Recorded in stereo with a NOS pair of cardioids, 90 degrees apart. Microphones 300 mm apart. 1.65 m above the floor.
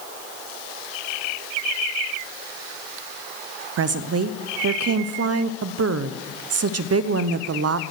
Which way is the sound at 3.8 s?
55° right.